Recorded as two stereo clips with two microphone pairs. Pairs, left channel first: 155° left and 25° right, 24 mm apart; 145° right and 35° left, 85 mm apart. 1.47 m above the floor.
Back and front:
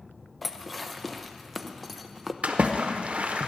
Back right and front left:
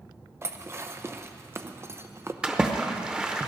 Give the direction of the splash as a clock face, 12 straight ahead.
1 o'clock.